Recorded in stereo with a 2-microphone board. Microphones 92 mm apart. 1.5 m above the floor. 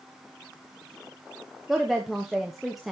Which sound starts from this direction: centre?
A woman speaking, at 1.7 s.